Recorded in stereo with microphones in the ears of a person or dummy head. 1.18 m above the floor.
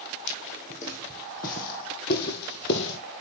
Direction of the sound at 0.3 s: 35° left (ahead or behind).